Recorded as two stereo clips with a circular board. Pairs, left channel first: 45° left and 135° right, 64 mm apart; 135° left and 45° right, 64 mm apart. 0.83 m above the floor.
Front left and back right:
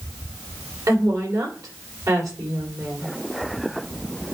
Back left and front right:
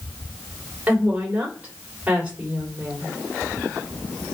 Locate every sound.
0.9 s a woman speaking: 110° right, 3 m